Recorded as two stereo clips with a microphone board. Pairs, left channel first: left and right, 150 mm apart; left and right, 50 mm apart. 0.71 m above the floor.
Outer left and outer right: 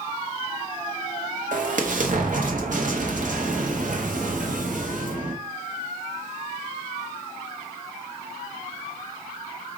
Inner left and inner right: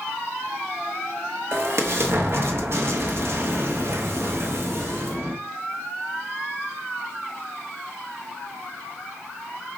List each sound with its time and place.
1.5 s an explosion: 60° right (ahead or behind), 0.9 m